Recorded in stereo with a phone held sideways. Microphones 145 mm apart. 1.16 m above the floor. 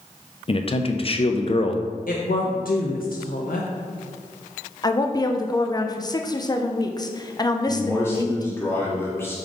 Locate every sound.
0.5 s a man speaking: 40° left (ahead or behind), 0.6 m
2.1 s a woman speaking: 80° left, 0.7 m
4.8 s a woman speaking: 30° left (ahead or behind), 0.6 m
7.7 s a man speaking: 15° left (ahead or behind), 1.8 m